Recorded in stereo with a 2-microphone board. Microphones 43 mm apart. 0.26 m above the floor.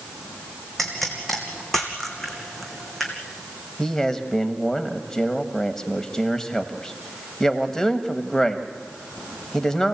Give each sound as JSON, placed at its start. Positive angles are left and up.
{"t": 0.8, "sound": "a pop", "side_deg": 5, "distance_m": 2.5}
{"t": 3.8, "sound": "a man speaking", "side_deg": 10, "distance_m": 1.4}